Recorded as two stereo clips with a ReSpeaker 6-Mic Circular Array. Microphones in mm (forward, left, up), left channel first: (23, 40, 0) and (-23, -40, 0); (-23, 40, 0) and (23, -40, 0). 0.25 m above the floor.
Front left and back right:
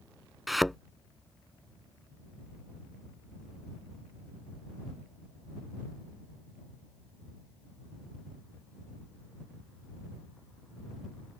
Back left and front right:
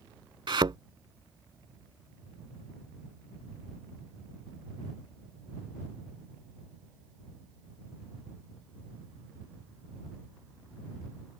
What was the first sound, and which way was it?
A thud, 30° right.